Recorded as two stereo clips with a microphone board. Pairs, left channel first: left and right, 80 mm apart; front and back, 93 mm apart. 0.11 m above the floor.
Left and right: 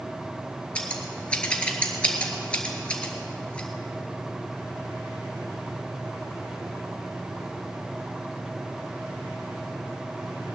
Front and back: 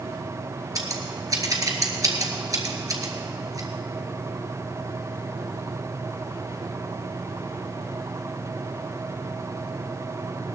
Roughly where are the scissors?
Behind.